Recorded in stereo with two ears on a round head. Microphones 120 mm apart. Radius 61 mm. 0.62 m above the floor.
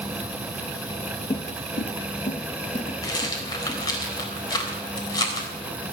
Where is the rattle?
30° left (ahead or behind), 3.5 m.